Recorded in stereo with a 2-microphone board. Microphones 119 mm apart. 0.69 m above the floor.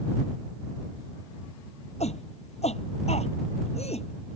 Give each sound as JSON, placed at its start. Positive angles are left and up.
{"t": 2.0, "sound": "a shout", "side_deg": 75}